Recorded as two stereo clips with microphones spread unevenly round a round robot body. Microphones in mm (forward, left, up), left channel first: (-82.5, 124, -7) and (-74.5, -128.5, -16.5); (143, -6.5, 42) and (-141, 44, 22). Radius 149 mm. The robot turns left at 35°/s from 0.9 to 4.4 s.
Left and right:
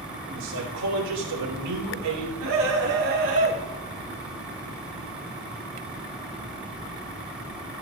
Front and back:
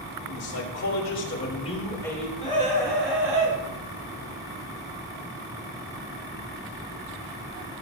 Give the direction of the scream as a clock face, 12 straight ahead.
3 o'clock.